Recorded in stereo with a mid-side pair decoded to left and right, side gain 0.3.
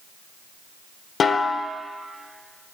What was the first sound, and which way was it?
A snare drum, 70° left.